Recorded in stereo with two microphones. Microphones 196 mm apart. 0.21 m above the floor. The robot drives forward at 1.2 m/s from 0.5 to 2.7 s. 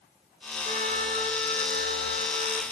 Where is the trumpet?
45° right (ahead or behind), 2.5 m; by 2.6 s 55° right (ahead or behind), 2 m.